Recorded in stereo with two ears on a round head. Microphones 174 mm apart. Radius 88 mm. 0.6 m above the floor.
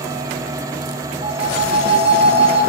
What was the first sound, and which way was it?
A phone ringing, 35° right (ahead or behind).